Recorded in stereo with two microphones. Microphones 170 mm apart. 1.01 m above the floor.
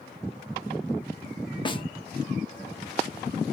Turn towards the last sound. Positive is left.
turn(degrees=25)  # may be behind; listen again after turning